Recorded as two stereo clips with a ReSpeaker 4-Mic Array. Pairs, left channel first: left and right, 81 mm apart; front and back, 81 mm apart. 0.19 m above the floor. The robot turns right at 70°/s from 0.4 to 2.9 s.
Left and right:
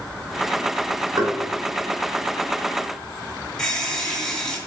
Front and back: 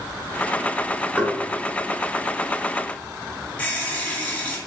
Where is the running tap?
20° left, 0.9 m.